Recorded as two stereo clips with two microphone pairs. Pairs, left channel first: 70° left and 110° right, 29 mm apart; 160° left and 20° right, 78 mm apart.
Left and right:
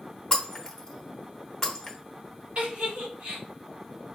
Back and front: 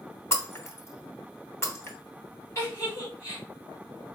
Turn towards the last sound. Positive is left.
turn(degrees=-150)